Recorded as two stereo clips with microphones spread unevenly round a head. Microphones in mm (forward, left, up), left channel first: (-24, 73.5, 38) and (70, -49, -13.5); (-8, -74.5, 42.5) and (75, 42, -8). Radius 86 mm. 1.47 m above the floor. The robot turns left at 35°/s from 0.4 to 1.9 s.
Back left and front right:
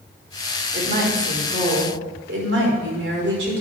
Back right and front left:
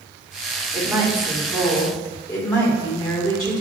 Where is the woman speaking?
20° right, 3.5 m; by 3.6 s 60° right, 3.5 m.